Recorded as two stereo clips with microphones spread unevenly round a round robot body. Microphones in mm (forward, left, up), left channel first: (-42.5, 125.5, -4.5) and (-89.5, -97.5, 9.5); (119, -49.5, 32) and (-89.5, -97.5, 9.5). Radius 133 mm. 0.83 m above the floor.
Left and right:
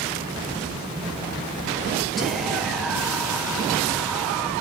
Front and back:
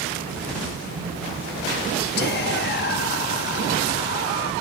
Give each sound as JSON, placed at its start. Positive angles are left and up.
{"t": 2.2, "sound": "whispering", "azimuth_deg": -10, "distance_m": 0.6}